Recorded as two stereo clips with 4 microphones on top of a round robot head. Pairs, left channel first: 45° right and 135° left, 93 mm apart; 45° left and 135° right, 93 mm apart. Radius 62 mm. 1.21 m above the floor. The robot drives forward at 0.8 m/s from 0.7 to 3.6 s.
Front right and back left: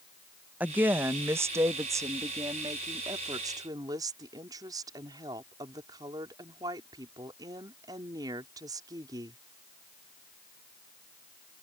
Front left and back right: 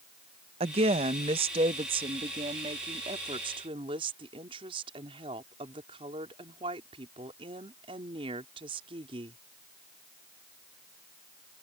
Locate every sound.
0.6 s a woman speaking: 150° right; by 9.4 s 170° right